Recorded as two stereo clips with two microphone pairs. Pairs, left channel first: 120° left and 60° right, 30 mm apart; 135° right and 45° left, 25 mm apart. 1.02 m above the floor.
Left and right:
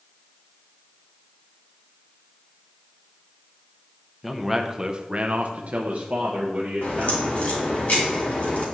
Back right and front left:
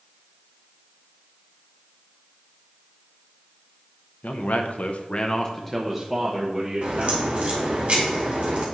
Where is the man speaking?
140° right, 0.8 m; by 7.8 s 10° right, 1.7 m.